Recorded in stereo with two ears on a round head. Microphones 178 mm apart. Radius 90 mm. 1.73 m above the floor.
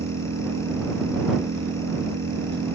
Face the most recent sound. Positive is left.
turn(degrees=-55)  # may be behind; listen again after turning